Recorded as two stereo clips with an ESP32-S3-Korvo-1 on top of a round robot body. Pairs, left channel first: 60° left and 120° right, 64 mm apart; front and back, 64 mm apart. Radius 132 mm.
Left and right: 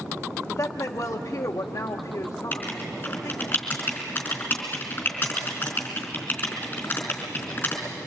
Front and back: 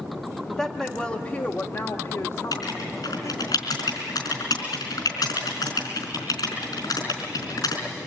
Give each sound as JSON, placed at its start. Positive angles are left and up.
{"t": 0.5, "sound": "a woman speaking", "azimuth_deg": 95, "distance_m": 1.5}
{"t": 2.5, "sound": "writing", "azimuth_deg": 0, "distance_m": 4.0}